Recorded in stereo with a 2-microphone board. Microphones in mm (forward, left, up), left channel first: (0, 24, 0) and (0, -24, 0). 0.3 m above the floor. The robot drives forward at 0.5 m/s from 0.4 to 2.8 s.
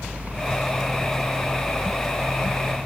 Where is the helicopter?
10° left (ahead or behind).